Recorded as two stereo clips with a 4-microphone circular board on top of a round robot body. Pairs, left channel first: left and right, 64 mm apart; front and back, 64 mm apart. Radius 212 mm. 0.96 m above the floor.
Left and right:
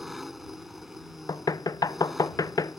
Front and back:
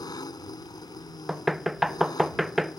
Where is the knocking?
90° left.